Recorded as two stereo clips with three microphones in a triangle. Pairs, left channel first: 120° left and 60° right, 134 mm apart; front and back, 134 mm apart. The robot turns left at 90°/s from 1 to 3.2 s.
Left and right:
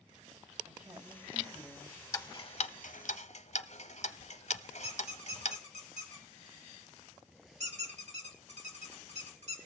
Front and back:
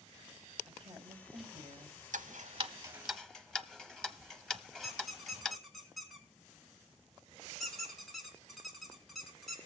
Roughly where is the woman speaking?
Behind right.